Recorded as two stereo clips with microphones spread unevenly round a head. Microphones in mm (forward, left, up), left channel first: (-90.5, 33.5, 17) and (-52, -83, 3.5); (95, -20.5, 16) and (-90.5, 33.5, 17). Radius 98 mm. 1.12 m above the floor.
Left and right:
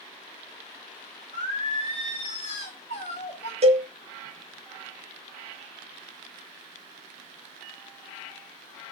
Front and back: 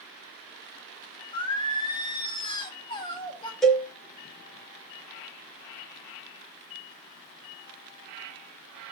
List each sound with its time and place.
1.3 s singing: 50° left, 1.7 m
3.6 s a cowbell: 105° right, 3 m